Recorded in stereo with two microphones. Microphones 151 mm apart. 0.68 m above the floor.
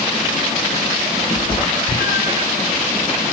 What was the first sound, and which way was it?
A cat meowing, 75° left (ahead or behind).